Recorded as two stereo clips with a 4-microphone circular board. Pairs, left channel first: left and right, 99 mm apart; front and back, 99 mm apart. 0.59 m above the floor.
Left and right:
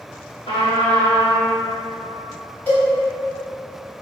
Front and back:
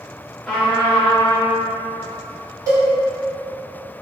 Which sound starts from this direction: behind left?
A cowbell, at 2.7 s.